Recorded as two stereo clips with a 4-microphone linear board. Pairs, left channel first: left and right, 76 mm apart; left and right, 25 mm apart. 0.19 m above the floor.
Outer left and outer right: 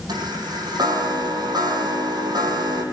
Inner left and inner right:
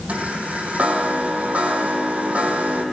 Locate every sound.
0.1 s a chime: 65° right (ahead or behind), 5 m